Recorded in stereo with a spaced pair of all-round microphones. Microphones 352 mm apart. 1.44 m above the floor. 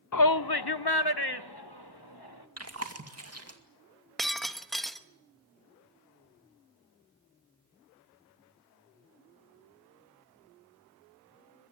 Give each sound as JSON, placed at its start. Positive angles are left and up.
{"t": 0.1, "sound": "a shout", "side_deg": 50, "distance_m": 0.5}
{"t": 2.6, "sound": "chewing", "side_deg": -40, "distance_m": 2.5}
{"t": 4.2, "sound": "breaking glass", "side_deg": 0, "distance_m": 1.1}